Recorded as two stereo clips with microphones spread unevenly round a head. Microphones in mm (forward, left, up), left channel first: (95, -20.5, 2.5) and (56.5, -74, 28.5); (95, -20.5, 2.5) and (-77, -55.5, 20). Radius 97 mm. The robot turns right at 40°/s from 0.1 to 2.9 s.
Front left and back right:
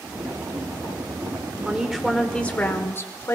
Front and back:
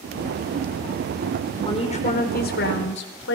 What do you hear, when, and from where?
1.6 s a woman speaking: 50° right, 4.5 m; by 3.4 s straight ahead, 4.5 m